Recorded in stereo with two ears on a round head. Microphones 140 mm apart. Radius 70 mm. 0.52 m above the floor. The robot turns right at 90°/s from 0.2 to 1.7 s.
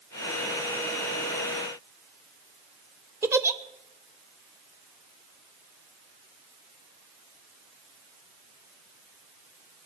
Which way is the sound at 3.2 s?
15° right (ahead or behind).